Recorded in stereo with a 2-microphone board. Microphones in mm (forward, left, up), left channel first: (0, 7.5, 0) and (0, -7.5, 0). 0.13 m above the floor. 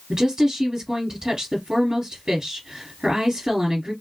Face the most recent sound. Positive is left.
turn(degrees=-40)  # may be behind; listen again after turning